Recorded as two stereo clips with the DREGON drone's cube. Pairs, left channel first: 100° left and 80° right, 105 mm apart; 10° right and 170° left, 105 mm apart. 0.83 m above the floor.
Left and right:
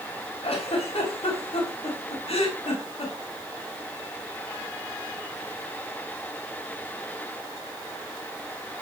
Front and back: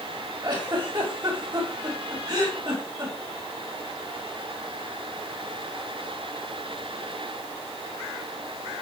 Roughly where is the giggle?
Behind left.